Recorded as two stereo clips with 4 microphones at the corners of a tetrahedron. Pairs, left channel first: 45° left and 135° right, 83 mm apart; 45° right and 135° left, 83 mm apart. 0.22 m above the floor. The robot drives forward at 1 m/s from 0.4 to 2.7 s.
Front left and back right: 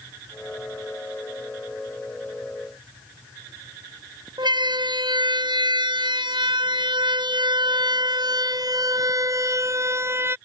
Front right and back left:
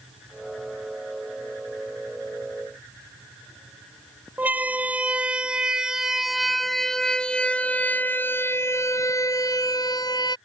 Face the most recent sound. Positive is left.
turn(degrees=-75)